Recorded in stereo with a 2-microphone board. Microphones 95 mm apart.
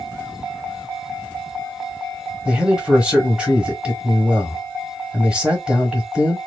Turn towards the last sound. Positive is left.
turn(degrees=-10)  # may be behind; listen again after turning